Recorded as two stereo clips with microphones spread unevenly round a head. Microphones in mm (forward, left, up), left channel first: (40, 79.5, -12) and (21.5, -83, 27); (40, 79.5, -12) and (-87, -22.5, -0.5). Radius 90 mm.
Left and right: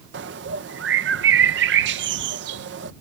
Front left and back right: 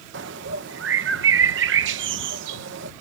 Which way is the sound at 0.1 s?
120° right.